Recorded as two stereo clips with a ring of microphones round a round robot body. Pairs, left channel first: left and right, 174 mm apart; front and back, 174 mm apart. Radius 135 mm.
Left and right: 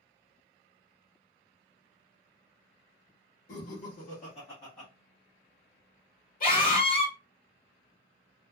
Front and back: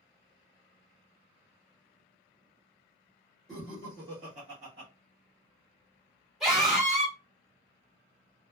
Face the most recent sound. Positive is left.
turn(degrees=95)